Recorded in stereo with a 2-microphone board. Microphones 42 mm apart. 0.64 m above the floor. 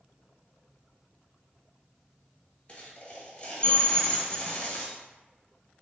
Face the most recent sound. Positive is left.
turn(degrees=35)  # may be behind; listen again after turning